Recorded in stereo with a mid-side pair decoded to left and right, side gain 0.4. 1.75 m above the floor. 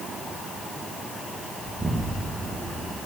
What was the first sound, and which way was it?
An explosion, 15° right.